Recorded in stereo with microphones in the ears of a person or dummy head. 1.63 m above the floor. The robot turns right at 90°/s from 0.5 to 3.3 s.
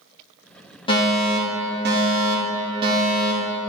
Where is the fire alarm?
150° left, 1.8 m; by 3.6 s 10° left, 1.8 m.